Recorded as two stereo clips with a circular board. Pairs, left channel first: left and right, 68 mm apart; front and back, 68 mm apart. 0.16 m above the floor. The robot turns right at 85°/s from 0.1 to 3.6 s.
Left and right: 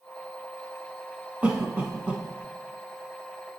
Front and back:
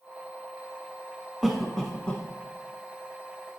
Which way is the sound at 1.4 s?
100° right.